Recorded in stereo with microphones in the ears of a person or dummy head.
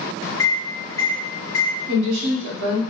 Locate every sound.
0.4 s a microwave: 20° left (ahead or behind), 1.8 m
1.9 s a woman speaking: 70° right (ahead or behind), 1.1 m